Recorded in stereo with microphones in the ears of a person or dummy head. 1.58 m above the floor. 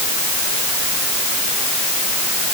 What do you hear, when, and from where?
Only background noise.